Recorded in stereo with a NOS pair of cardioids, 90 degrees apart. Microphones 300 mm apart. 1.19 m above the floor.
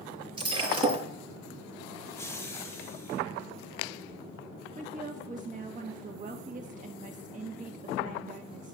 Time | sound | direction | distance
0.4 | breaking glass | 15° right | 8 m
2.0 | laughter | 10° left | 1.2 m
4.8 | a woman speaking | 25° right | 1.5 m